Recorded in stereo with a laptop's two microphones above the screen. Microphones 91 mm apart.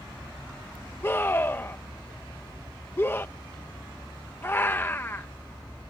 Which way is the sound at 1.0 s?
25° left (ahead or behind).